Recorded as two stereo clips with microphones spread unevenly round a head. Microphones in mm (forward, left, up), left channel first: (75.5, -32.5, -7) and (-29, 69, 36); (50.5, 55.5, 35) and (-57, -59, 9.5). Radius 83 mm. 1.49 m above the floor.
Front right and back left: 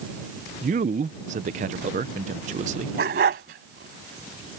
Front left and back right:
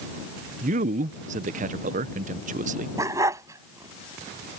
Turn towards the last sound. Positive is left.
turn(degrees=150)